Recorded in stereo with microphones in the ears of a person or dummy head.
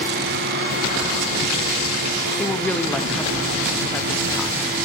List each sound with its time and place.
2.4 s a woman speaking: 5° left (ahead or behind), 0.9 m